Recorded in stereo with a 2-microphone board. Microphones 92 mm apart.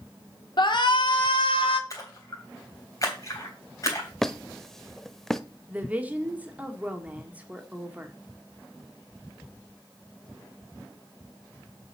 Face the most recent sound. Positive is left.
turn(degrees=-15)  # may be behind; listen again after turning